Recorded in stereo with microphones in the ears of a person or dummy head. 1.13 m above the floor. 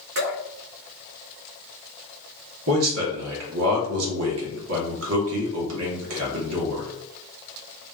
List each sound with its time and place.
0.1 s dripping: 55° right (ahead or behind), 1.7 m
2.7 s a man speaking: 80° right, 1.6 m